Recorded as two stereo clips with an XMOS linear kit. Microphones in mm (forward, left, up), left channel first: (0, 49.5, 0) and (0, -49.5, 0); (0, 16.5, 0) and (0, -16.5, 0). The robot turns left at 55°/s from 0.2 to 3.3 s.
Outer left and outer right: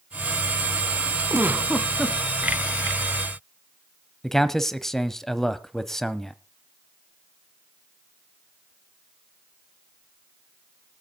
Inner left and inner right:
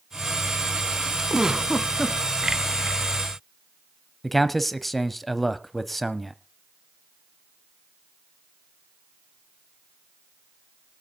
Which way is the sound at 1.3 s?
145° right.